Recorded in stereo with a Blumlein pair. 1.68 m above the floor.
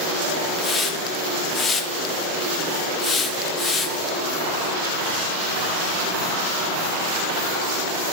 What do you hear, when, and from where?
0.6 s a hiss: 15° left, 0.7 m